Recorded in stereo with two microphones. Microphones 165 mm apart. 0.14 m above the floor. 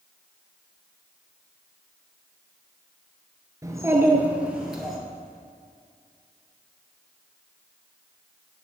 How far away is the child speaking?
About 1.6 m.